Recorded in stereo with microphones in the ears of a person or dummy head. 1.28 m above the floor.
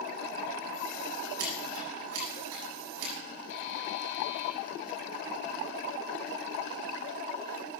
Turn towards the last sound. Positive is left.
turn(degrees=65)  # may be behind; listen again after turning